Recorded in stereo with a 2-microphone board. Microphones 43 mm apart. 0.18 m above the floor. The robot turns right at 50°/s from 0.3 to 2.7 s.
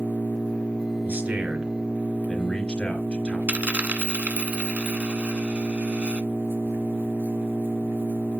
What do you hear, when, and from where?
0.0 s an engine running: 135° left, 3 m; by 8.4 s 105° right, 3 m
1.1 s a man speaking: 50° right, 3 m; by 3.4 s 35° left, 3 m
3.5 s a dropped coin: 35° right (ahead or behind), 0.9 m